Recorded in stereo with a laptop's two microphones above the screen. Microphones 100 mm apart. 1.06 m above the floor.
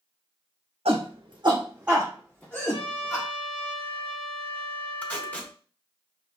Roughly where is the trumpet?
Left.